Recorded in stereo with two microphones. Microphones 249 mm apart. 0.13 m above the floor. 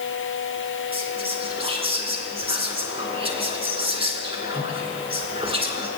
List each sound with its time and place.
0.9 s whispering: 25° right (ahead or behind), 1.7 m